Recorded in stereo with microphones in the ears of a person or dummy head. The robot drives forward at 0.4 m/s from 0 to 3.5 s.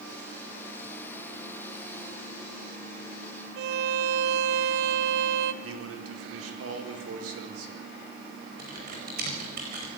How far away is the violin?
About 0.7 m.